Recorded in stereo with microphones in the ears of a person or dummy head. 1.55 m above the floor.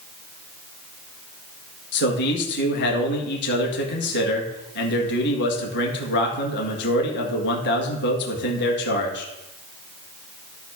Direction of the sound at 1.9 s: 60° left (ahead or behind).